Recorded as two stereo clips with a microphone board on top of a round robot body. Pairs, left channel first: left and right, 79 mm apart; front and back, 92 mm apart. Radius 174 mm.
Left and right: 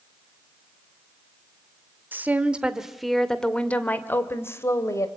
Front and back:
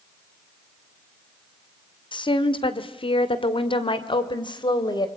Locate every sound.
2.1 s a woman speaking: 25° right, 2 m; by 5.1 s 40° left, 3 m